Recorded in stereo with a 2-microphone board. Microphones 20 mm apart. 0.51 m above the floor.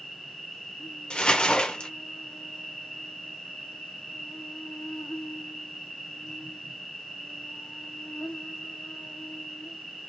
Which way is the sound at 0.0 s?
75° left (ahead or behind).